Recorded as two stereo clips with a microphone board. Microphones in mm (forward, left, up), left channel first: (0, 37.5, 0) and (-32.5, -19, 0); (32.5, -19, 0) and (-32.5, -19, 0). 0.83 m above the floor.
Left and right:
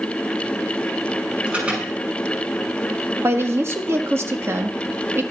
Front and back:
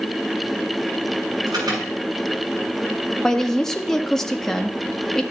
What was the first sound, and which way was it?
An alarm, 170° left.